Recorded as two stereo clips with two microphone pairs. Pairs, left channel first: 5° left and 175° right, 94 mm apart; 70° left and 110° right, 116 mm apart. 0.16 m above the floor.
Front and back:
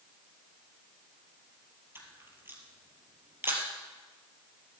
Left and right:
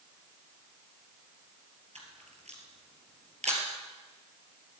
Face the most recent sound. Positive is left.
turn(degrees=-110)